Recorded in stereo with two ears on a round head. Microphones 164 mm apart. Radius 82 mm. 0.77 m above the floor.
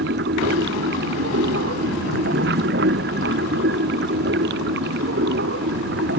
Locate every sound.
0.0 s running water: 60° right (ahead or behind)